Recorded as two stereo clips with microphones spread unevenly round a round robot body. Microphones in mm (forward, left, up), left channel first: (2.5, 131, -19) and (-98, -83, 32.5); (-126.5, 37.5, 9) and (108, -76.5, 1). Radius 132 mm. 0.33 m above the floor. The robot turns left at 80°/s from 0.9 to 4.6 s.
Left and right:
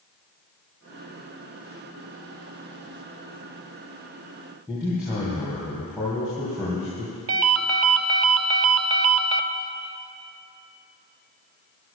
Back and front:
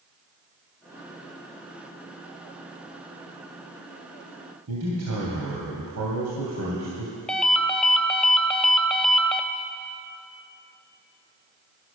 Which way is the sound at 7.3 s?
120° right.